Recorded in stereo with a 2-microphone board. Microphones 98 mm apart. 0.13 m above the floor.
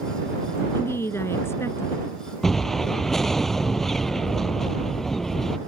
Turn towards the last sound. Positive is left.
turn(degrees=0)  # may be behind; listen again after turning